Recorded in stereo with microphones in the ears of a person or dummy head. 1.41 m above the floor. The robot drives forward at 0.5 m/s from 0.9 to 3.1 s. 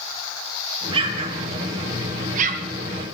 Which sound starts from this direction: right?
An explosion, at 0.9 s.